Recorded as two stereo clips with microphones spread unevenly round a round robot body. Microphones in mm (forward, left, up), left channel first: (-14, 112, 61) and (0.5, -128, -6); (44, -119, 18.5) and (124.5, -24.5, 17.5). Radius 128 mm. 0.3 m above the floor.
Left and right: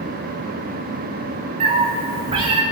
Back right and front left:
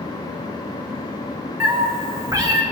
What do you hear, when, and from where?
1.6 s a cat meowing: 20° right, 3 m; by 2.6 s 15° right, 3 m